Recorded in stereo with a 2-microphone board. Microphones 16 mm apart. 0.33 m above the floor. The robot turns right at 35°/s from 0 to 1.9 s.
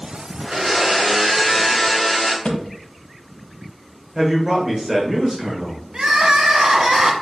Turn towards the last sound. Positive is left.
turn(degrees=-50)  # may be behind; listen again after turning